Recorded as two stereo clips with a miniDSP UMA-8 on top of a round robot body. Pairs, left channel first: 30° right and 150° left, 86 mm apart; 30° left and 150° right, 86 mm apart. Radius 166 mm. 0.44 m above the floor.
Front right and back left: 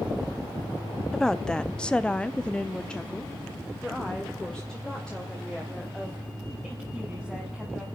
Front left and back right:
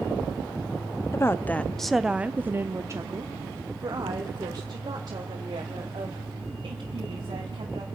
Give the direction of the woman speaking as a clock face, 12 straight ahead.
10 o'clock.